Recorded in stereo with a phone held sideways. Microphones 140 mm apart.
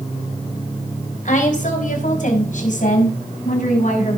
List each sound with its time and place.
1.2 s a woman speaking: 70° left (ahead or behind), 4 m